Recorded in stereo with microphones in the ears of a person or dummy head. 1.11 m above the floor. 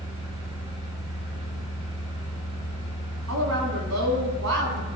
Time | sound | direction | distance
0.0 | a fan | 30° right (ahead or behind) | 2.5 m
3.3 | a woman speaking | 80° right | 2.5 m